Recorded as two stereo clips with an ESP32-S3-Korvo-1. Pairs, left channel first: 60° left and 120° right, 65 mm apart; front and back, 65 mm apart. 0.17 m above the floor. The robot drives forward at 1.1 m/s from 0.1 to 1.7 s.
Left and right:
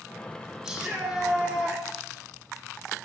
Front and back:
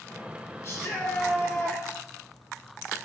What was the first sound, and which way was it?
A shout, 40° right.